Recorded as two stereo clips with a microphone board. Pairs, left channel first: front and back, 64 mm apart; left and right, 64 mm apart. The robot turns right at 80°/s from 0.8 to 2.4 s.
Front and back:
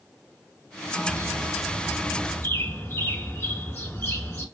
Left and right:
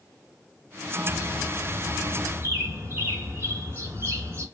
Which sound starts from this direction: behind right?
A bird, at 1.1 s.